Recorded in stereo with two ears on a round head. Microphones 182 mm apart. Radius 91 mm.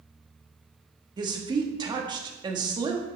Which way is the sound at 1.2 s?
20° right (ahead or behind).